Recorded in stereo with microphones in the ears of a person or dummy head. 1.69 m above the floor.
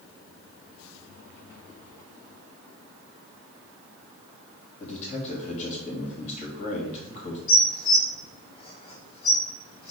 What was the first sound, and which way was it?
A man speaking, 35° left (ahead or behind).